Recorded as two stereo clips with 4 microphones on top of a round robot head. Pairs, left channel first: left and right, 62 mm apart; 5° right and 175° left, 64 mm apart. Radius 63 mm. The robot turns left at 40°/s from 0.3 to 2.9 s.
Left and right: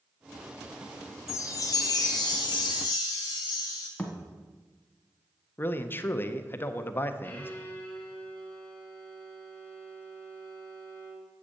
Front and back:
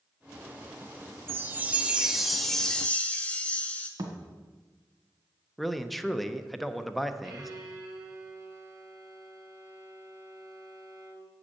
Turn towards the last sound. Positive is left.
turn(degrees=155)